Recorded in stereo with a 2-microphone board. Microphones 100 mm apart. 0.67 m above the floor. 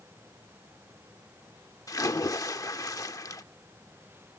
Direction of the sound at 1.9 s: 35° left (ahead or behind).